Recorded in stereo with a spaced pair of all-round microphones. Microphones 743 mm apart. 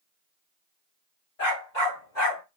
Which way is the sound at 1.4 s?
60° left (ahead or behind).